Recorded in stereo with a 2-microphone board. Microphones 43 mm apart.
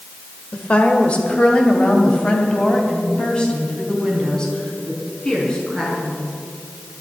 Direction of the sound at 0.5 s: 30° left (ahead or behind).